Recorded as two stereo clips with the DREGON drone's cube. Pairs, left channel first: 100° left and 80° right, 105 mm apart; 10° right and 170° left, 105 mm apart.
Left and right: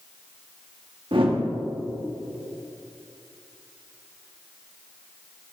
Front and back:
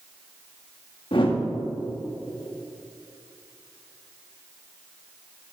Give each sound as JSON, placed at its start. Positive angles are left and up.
{"t": 1.1, "sound": "a whoosh", "azimuth_deg": -45, "distance_m": 1.4}